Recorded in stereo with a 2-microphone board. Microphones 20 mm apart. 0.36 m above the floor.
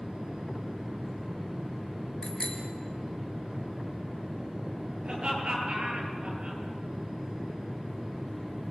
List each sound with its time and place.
2.2 s a bicycle bell: 35° left (ahead or behind), 4 m
5.0 s laughter: 40° right (ahead or behind), 8 m